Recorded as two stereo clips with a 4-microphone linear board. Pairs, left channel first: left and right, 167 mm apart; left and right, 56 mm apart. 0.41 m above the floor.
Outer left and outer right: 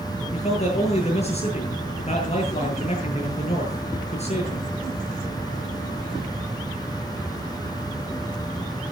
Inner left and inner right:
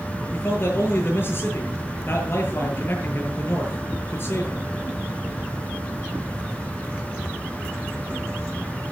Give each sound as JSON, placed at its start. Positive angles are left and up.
{"t": 0.3, "sound": "a man speaking", "side_deg": 40, "distance_m": 7.5}